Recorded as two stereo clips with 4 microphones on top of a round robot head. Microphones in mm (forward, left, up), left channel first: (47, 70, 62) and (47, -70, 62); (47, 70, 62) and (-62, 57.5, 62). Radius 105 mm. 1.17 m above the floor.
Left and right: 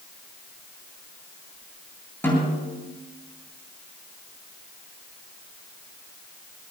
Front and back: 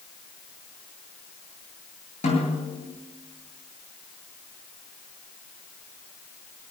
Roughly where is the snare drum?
Ahead.